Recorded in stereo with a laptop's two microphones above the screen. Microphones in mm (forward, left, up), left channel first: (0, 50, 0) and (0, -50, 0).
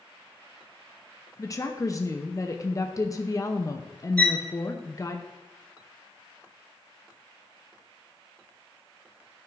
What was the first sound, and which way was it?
A woman speaking, 35° left (ahead or behind).